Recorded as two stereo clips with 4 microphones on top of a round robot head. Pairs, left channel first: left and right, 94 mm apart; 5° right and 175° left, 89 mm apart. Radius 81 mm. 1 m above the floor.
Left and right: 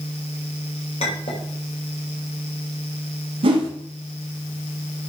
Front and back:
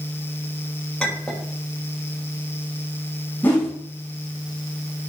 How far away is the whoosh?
About 1.8 m.